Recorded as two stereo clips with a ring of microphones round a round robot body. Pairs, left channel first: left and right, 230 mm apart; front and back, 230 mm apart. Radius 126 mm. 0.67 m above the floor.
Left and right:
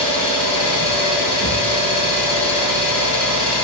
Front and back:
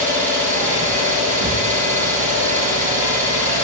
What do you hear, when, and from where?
0.0 s an engine running: 120° left, 3.5 m